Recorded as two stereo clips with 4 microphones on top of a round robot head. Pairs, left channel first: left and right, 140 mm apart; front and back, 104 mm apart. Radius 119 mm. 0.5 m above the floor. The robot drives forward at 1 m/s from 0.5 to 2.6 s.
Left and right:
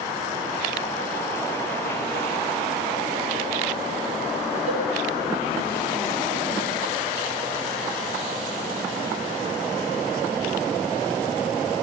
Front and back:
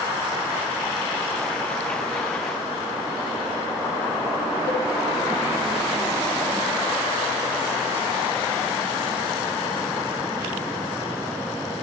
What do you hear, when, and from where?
4.7 s a cowbell: 130° right, 8 m